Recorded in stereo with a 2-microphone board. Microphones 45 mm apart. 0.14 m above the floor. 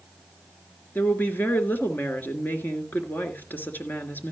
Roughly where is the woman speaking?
Left.